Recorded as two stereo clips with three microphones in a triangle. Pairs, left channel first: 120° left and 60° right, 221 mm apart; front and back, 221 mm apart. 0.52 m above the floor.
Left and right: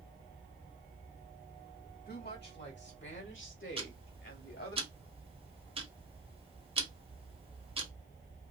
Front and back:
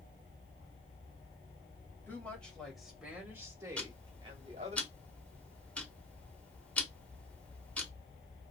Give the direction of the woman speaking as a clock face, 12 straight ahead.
9 o'clock.